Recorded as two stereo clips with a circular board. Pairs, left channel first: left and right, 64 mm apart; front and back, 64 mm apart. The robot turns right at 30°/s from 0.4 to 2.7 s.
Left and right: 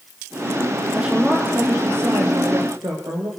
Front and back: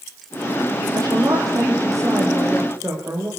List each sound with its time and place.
0.9 s a woman speaking: 170° right, 7 m; by 3.3 s 115° right, 7 m